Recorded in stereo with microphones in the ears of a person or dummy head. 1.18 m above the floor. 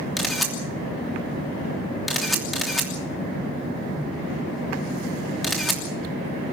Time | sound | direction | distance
0.2 | a camera shutter | 10° right (ahead or behind) | 3 m